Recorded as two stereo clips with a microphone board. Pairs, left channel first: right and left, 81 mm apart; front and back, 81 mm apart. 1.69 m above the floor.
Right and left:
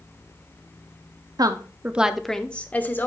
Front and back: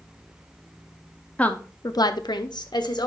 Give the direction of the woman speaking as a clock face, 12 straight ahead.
10 o'clock.